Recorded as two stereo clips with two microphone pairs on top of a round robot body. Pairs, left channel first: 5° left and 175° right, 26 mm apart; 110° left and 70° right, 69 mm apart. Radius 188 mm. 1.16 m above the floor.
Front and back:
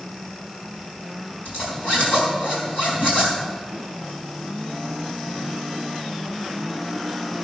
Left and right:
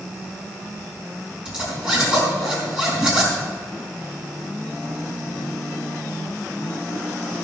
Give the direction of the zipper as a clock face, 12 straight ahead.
12 o'clock.